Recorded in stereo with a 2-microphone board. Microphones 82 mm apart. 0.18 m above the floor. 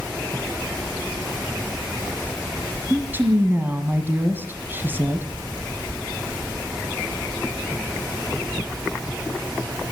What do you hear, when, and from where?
2.9 s a woman speaking: 25° right (ahead or behind), 1.8 m